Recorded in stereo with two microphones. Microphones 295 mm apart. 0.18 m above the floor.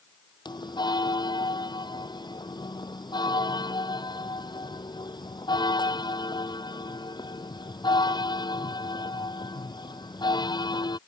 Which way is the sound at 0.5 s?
15° left (ahead or behind).